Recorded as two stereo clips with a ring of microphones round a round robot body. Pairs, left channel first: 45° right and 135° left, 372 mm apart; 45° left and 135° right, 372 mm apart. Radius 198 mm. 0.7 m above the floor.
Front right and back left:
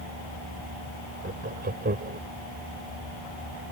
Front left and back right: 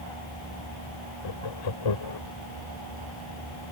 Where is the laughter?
70° left.